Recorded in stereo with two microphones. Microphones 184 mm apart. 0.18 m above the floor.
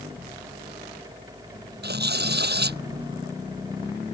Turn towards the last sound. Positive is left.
turn(degrees=-65)  # may be behind; listen again after turning